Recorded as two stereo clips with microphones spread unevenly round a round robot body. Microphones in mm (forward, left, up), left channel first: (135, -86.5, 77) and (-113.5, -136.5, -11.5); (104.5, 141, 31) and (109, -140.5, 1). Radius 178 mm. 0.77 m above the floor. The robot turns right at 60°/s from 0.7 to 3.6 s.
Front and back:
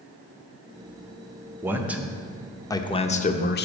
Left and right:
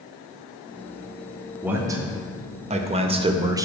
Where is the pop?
No pop in this recording.